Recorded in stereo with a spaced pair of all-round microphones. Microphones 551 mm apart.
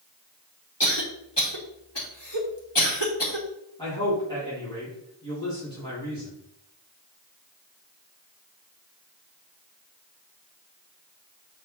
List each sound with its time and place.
0.8 s a cough: 50° left (ahead or behind), 2.5 m
3.8 s a man speaking: 10° left (ahead or behind), 4 m